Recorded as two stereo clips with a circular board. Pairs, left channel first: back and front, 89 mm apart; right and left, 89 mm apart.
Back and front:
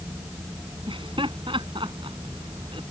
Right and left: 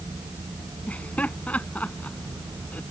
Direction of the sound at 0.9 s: 15° right.